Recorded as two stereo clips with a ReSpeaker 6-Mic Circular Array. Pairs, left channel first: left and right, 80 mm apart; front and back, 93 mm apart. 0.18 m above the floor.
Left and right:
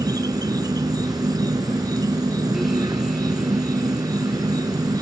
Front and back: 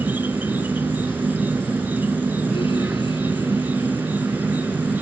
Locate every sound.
0.0 s an insect: 110° right